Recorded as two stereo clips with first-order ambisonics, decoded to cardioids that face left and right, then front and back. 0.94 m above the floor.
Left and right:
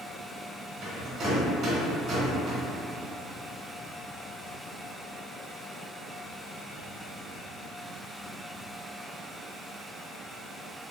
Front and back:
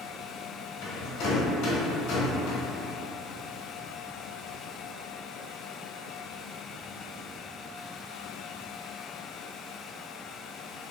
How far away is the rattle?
About 1.3 m.